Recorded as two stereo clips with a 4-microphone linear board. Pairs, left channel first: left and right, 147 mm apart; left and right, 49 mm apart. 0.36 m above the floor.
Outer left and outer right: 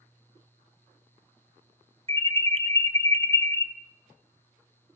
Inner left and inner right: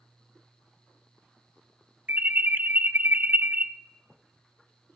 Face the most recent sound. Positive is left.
turn(degrees=-40)  # may be behind; listen again after turning